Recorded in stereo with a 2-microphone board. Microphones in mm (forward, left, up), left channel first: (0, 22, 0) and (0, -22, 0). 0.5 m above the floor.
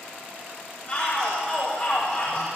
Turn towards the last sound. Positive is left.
turn(degrees=45)  # may be behind; listen again after turning